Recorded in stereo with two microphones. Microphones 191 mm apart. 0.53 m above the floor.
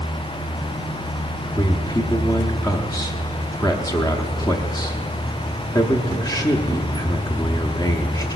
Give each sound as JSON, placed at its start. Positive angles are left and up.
{"t": 1.6, "sound": "a man speaking", "side_deg": 20, "distance_m": 0.7}